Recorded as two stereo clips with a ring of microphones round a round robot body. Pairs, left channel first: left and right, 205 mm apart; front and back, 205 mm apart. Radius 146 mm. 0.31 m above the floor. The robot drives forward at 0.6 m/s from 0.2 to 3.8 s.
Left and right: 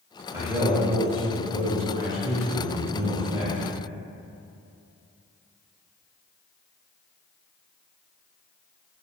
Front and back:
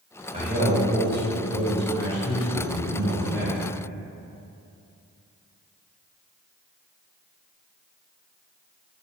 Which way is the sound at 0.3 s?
160° right.